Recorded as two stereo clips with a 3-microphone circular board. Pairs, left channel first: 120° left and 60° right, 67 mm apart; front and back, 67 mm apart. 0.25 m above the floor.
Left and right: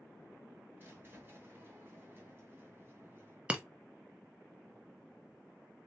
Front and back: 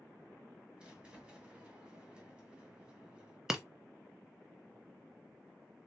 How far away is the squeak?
About 1.1 m.